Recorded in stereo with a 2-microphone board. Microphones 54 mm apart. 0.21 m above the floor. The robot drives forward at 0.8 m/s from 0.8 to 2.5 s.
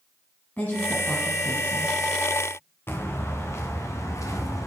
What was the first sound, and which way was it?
A woman speaking, 35° left (ahead or behind).